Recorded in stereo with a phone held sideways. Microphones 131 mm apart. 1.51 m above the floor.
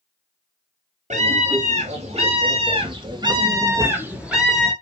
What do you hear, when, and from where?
1.1 s a scream: 65° right (ahead or behind), 4 m; by 4.7 s 5° left (ahead or behind), 2 m